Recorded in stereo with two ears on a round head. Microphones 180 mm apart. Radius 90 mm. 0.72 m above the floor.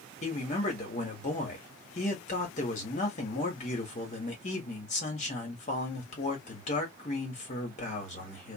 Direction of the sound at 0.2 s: 35° left (ahead or behind).